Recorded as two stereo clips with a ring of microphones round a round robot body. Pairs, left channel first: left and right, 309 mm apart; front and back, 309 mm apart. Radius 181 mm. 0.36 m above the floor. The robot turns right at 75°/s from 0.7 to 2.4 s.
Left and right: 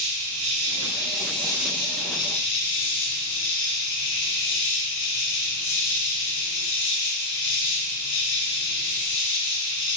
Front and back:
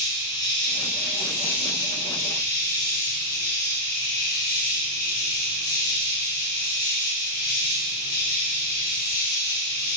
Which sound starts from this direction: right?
An insect, at 0.0 s.